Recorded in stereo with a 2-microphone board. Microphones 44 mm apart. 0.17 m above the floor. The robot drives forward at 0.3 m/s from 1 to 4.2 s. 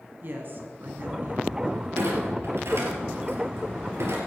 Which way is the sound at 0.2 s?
50° right (ahead or behind).